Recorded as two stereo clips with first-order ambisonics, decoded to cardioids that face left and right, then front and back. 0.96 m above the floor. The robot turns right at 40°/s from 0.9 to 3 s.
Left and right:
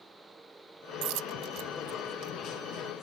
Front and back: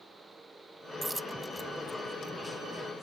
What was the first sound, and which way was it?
A dropped coin, 95° right.